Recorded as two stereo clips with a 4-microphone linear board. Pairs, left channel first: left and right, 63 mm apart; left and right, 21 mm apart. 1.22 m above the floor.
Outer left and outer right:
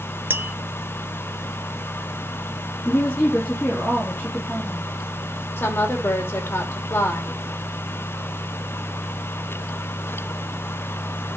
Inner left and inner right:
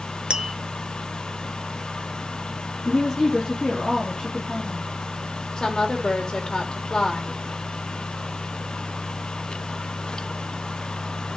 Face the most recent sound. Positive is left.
turn(degrees=40)  # may be behind; listen again after turning